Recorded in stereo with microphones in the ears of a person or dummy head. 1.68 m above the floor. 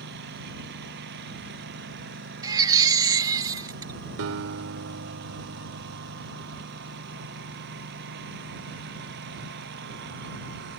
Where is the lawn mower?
60° right (ahead or behind).